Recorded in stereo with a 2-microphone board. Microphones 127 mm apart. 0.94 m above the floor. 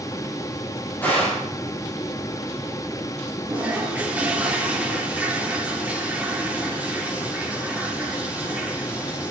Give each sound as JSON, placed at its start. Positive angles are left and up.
{"t": 1.0, "sound": "a gunshot", "side_deg": 15, "distance_m": 8.5}
{"t": 3.5, "sound": "a toilet flushing", "side_deg": -10, "distance_m": 3.0}